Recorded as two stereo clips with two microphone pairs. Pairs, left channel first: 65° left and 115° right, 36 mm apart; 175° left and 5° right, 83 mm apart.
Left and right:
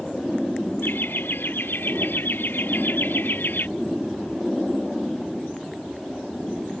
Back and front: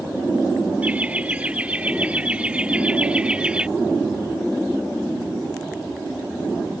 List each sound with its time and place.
0.8 s laughter: 65° left; by 3.7 s 70° left